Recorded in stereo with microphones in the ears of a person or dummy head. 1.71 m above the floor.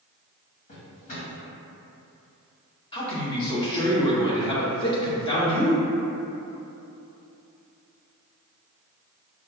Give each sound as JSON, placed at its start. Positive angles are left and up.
{"t": 0.7, "sound": "a drawer", "side_deg": 40, "distance_m": 1.6}
{"t": 2.9, "sound": "a man speaking", "side_deg": 25, "distance_m": 1.0}